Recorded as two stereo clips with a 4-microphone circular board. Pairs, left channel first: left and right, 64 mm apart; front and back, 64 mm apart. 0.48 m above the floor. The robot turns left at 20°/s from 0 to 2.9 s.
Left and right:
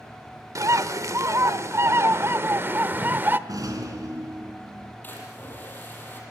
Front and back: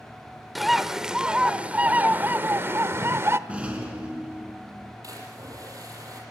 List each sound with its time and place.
0.6 s a bird: 90° right, 0.9 m; by 3.4 s 140° right, 0.9 m
3.5 s a rattle: 110° right, 4.5 m
5.0 s a splash: 150° left, 7.5 m